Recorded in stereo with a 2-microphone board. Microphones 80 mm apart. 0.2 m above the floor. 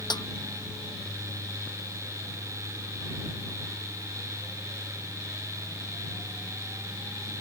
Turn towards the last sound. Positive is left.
turn(degrees=65)  # may be behind; listen again after turning